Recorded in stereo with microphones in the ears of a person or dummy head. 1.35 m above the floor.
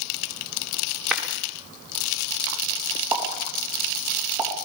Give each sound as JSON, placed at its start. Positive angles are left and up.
{"t": 1.1, "sound": "a clap", "side_deg": 0, "distance_m": 3.5}
{"t": 3.1, "sound": "a pop", "side_deg": -10, "distance_m": 4.0}